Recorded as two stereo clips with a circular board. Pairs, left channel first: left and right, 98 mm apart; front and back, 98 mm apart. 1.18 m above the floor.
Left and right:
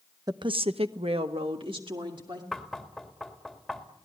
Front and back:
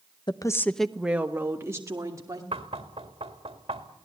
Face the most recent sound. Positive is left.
turn(degrees=180)